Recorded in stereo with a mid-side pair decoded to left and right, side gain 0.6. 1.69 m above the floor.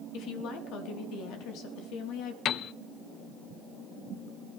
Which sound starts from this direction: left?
A woman speaking, at 0.1 s.